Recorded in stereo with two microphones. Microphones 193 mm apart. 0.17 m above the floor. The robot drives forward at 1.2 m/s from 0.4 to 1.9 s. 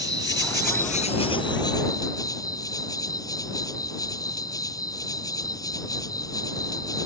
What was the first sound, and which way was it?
An insect, 60° left (ahead or behind).